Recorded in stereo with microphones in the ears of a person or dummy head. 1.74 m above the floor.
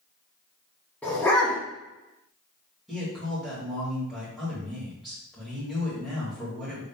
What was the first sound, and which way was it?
A dog barking, 10° left (ahead or behind).